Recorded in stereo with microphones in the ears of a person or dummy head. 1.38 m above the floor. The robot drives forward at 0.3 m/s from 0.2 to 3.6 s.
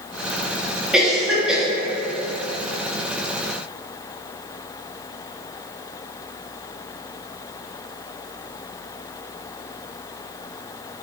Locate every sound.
0.9 s a cough: centre (ahead or behind), 0.9 m